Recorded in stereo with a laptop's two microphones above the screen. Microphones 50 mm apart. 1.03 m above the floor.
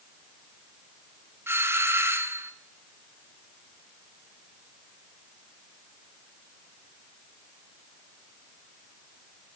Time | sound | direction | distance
1.5 | a doorbell | 55° right (ahead or behind) | 1.0 m